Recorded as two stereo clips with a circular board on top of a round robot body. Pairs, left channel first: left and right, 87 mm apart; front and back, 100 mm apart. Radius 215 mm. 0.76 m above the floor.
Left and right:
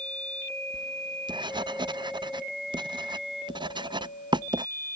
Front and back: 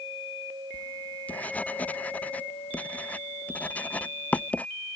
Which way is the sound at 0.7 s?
75° right.